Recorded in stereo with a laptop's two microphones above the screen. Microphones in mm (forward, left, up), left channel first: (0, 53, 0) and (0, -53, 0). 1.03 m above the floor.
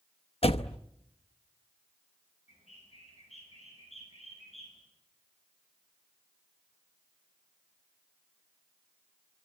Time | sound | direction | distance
0.4 | a door slam | 65° left (ahead or behind) | 0.7 m
2.5 | a bird | 85° left | 10 m